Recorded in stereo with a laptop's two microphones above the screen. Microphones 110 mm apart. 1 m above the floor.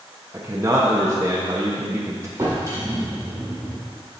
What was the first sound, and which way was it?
A man speaking, 25° right (ahead or behind).